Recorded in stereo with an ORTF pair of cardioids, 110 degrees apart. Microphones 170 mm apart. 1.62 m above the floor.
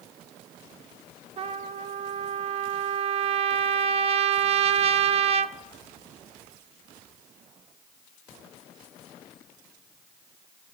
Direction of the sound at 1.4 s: 40° right.